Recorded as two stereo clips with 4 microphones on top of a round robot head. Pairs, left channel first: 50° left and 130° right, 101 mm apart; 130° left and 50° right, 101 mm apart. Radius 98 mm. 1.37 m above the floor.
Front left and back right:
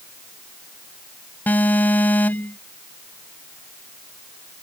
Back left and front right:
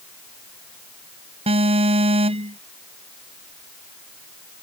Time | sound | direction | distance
1.5 | an alarm | 25° right | ?